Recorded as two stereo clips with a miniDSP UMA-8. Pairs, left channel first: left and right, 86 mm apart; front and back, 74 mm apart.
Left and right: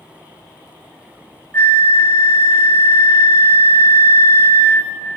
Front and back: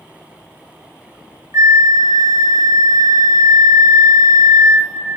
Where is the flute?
145° left, 0.6 m.